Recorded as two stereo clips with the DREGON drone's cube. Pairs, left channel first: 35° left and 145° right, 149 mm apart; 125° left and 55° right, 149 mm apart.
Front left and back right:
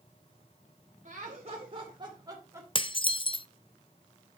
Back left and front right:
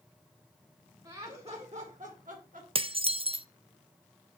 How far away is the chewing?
No chewing in this recording.